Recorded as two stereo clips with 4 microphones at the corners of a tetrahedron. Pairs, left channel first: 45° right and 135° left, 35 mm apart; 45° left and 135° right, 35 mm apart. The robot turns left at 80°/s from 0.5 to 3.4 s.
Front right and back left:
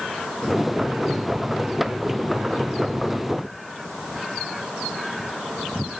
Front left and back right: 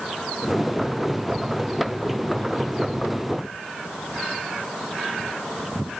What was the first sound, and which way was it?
Only background noise.